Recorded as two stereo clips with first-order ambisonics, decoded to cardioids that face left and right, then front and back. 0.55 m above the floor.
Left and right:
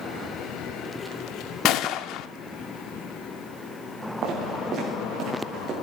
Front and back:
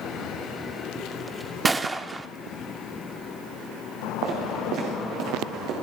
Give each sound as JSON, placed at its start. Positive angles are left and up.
{"t": 1.6, "sound": "a gunshot", "azimuth_deg": 100, "distance_m": 0.6}
{"t": 4.2, "sound": "footsteps", "azimuth_deg": -140, "distance_m": 5.0}